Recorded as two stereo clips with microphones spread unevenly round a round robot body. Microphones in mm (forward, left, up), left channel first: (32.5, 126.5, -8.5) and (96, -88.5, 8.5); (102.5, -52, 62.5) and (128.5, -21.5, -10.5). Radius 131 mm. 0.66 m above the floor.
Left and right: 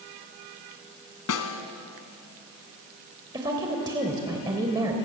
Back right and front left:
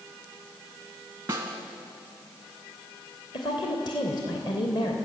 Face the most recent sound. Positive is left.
turn(degrees=-150)